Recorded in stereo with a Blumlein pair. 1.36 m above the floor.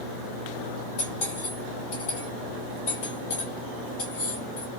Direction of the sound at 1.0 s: 45° left.